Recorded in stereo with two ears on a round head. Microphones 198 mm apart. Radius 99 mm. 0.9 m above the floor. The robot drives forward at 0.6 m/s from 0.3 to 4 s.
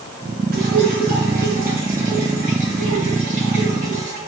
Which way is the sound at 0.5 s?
45° right (ahead or behind).